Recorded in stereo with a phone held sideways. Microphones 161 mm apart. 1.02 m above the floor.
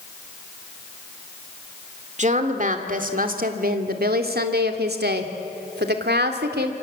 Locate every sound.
2.2 s a woman speaking: 45° right (ahead or behind), 2.5 m; by 6.8 s 80° right, 3 m